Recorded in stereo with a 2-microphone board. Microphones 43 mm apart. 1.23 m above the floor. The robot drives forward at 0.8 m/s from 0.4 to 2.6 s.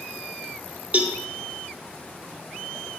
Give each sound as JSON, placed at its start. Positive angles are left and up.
{"t": 0.9, "sound": "a cowbell", "side_deg": -35, "distance_m": 1.0}